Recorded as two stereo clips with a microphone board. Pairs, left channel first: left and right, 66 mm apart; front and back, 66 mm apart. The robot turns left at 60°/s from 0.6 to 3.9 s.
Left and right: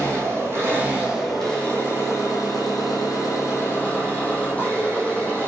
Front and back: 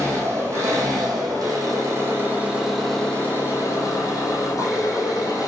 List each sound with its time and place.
0.0 s an engine running: 140° right, 1.8 m; by 5.5 s 25° left, 1.8 m